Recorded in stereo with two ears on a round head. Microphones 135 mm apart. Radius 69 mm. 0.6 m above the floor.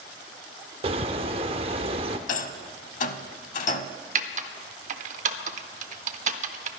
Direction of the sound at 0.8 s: 35° right (ahead or behind).